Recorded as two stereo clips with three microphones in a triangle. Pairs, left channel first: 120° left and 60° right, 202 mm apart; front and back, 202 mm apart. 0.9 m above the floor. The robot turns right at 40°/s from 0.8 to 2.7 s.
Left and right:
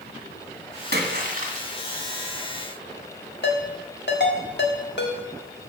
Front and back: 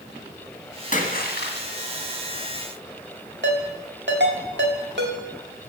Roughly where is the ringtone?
Behind left.